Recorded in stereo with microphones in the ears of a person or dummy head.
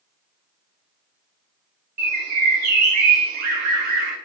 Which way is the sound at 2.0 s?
60° right (ahead or behind).